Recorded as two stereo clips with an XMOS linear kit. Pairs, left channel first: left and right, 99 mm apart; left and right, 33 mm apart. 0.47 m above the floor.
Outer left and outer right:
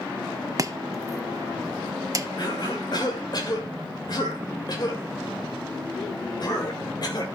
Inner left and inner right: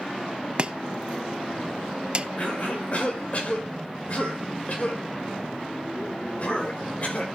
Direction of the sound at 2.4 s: 50° left (ahead or behind).